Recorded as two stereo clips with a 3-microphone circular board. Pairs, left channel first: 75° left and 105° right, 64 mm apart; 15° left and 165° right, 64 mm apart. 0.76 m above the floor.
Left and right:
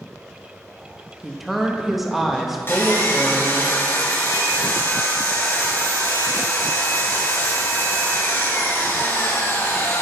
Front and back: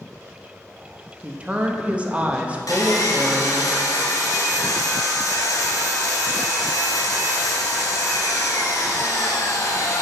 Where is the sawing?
20° left, 1.7 m.